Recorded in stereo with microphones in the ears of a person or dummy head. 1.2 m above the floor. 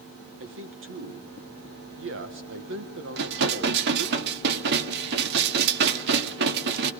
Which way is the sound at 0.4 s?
60° right (ahead or behind).